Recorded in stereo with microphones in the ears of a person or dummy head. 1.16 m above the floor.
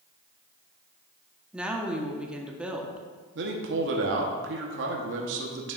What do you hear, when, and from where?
1.5 s a woman speaking: 5° right (ahead or behind), 0.9 m
3.4 s a man speaking: 55° right (ahead or behind), 0.9 m